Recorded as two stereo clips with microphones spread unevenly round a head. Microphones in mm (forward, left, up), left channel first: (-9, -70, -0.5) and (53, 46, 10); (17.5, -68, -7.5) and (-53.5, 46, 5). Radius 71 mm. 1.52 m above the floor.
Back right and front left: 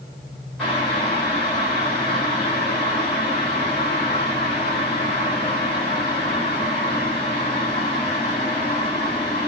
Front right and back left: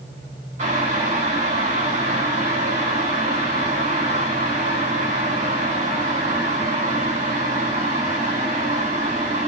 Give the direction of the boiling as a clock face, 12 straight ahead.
7 o'clock.